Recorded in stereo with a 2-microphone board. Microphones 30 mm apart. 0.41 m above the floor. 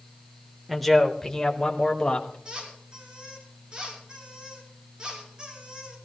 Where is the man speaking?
Centre (ahead or behind), 1.3 m; by 2.4 s 30° left (ahead or behind), 2 m.